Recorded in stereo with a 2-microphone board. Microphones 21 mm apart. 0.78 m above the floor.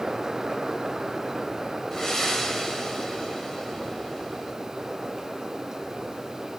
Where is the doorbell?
No doorbell in this recording.